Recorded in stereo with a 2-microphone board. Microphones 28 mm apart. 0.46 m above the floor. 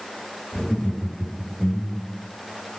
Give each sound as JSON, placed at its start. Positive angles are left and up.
{"t": 0.5, "sound": "laughter", "side_deg": 25, "distance_m": 2.0}